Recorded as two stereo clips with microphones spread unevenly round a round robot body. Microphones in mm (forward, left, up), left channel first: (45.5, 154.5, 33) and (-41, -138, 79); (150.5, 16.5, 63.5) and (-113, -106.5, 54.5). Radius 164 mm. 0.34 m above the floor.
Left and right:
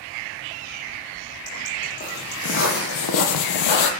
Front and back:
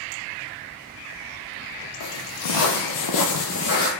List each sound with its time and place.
2.0 s footsteps: 10° left, 0.9 m; by 3.9 s 90° left, 0.5 m